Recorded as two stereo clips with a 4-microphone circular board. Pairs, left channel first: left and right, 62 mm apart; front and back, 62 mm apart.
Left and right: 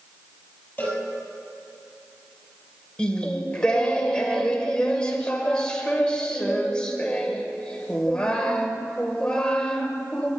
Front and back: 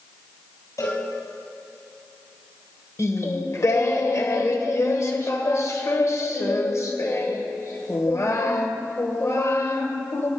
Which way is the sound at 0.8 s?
25° left.